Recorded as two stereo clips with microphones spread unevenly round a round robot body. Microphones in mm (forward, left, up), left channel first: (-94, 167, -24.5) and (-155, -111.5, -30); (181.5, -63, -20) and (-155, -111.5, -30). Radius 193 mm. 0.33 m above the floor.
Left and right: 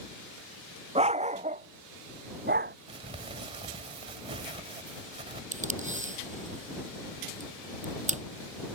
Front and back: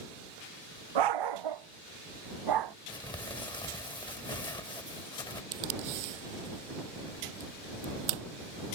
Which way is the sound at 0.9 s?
170° right.